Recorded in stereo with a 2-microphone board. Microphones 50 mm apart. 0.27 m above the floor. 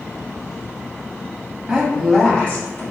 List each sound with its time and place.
1.7 s a woman speaking: 10° right (ahead or behind), 1.7 m; by 2.8 s 40° left (ahead or behind), 1.7 m